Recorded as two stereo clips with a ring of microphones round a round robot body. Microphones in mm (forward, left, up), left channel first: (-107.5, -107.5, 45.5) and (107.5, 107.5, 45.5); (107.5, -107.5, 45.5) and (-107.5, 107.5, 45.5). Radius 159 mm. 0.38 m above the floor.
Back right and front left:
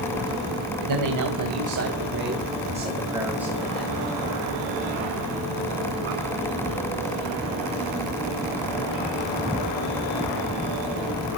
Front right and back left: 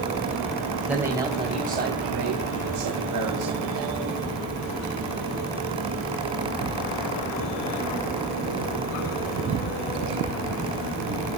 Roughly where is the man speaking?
Ahead left.